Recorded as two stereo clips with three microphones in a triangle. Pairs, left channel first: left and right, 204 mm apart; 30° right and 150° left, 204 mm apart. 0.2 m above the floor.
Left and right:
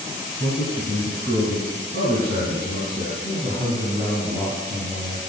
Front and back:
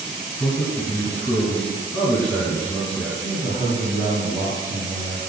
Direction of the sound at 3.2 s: 125° left.